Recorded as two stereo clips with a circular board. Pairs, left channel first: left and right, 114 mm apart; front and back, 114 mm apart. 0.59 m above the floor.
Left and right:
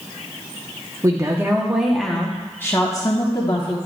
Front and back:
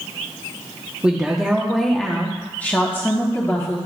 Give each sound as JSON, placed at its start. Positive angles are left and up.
{"t": 1.0, "sound": "a woman speaking", "azimuth_deg": -105, "distance_m": 1.0}